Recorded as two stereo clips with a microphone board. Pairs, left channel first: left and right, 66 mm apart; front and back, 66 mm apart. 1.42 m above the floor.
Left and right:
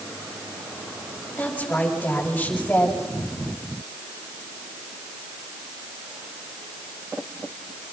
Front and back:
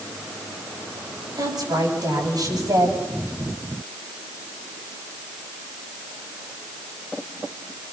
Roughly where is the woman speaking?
Behind.